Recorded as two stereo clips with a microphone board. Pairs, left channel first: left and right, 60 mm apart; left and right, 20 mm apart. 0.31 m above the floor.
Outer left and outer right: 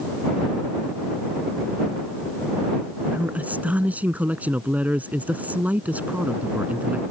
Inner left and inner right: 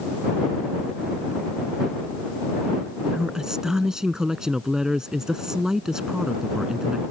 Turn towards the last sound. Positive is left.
turn(degrees=-30)  # may be behind; listen again after turning